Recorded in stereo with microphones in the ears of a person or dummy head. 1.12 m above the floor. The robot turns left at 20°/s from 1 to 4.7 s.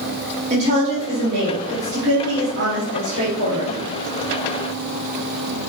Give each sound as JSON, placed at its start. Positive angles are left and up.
{"t": 0.5, "sound": "a woman speaking", "azimuth_deg": -40, "distance_m": 1.6}